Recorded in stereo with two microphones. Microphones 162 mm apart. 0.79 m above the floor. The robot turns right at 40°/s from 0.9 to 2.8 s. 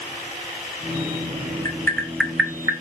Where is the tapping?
20° left (ahead or behind), 1.3 m; by 2.7 s 20° right (ahead or behind), 1.3 m.